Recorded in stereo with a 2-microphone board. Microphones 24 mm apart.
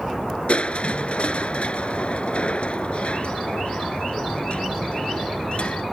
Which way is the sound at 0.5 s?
55° left (ahead or behind).